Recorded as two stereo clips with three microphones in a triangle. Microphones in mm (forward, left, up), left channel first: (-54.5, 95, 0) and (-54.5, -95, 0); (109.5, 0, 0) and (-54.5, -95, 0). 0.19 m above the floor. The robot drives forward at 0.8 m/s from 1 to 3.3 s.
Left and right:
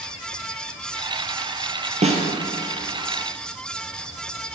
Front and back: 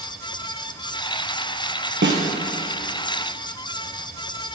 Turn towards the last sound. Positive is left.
turn(degrees=-165)